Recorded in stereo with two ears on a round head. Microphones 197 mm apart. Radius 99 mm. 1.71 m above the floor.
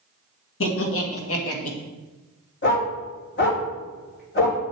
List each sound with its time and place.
0.6 s laughter: 65° left (ahead or behind), 2 m; by 1.8 s 75° left (ahead or behind), 1.9 m
2.6 s a dog barking: 50° left (ahead or behind), 2.5 m